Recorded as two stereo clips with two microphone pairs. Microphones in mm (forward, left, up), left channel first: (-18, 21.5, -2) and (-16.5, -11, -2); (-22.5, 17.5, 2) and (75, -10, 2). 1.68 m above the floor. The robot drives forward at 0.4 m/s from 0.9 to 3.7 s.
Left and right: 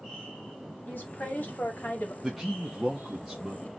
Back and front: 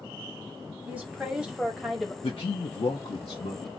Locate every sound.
0.9 s a woman speaking: 55° left, 1.6 m; by 2.1 s 75° left, 1.4 m
2.2 s a man speaking: 175° right, 0.6 m; by 3.7 s straight behind, 1.2 m